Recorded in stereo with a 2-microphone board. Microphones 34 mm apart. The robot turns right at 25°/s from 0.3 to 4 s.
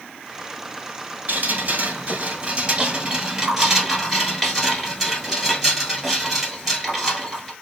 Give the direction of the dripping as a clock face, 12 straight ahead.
2 o'clock.